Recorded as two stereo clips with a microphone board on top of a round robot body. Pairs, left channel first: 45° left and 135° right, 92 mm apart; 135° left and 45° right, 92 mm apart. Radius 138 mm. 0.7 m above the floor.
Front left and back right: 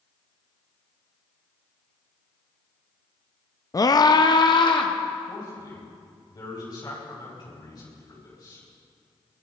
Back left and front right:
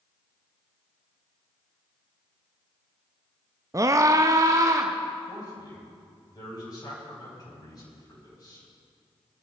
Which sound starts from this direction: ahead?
A scream, at 3.7 s.